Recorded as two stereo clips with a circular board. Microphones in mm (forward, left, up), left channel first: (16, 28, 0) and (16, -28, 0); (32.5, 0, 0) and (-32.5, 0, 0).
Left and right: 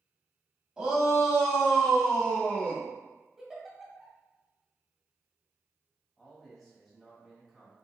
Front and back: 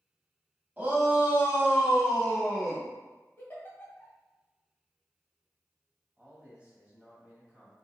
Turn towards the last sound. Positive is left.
turn(degrees=180)